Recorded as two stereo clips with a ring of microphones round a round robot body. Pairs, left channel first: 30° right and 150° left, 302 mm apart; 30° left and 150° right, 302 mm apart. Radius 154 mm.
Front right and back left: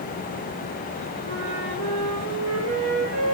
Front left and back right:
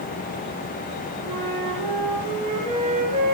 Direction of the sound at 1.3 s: 140° left.